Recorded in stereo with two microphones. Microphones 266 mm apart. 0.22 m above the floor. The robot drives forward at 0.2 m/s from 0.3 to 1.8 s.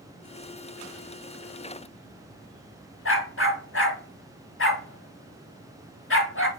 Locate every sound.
3.0 s a dog barking: 50° left (ahead or behind), 0.9 m